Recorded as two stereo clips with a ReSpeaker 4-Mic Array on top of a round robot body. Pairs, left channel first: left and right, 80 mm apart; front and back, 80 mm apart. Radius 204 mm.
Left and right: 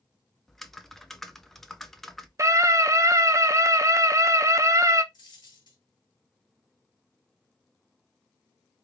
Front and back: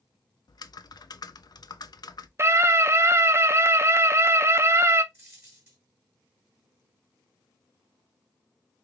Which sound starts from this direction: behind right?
A scream, at 2.4 s.